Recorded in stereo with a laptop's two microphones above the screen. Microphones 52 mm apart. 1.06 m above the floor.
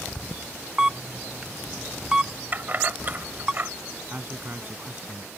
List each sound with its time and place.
0.8 s a camera shutter: 15° right (ahead or behind)
2.5 s keys jangling: 35° right (ahead or behind)
4.1 s a man speaking: 35° right (ahead or behind)